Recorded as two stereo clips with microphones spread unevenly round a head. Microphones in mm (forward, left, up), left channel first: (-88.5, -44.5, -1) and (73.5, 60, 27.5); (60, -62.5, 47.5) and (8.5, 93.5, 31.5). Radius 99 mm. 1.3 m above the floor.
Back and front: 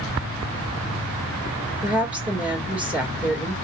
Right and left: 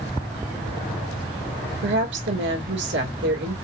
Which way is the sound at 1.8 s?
120° left.